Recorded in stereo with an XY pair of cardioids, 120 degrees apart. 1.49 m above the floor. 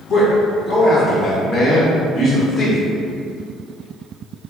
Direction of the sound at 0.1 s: 40° left.